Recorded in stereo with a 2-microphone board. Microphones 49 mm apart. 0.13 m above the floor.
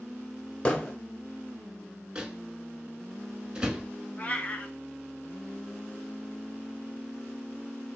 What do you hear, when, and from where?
0.7 s hammering: 20° left (ahead or behind), 1.3 m
2.1 s a microwave: 15° right (ahead or behind), 0.9 m
4.2 s a cat meowing: 35° left (ahead or behind), 0.8 m